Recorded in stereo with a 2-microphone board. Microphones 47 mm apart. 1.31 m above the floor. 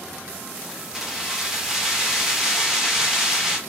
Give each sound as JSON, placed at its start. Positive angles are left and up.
{"t": 0.6, "sound": "keys jangling", "side_deg": -10, "distance_m": 0.8}